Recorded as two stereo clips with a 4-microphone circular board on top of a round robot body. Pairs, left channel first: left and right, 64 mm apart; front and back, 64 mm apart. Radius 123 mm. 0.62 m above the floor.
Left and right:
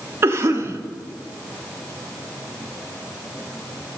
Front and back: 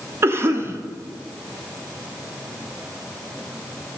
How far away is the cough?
About 1.2 m.